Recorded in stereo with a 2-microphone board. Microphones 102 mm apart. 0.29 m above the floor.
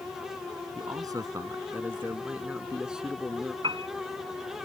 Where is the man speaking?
40° right (ahead or behind); by 3.5 s centre (ahead or behind).